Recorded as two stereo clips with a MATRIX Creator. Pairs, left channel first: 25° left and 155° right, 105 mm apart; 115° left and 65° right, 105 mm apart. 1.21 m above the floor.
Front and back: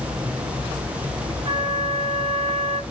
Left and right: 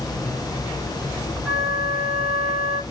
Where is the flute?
160° right, 2.5 m.